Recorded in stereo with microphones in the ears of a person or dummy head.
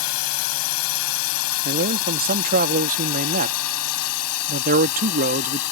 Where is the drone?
80° left.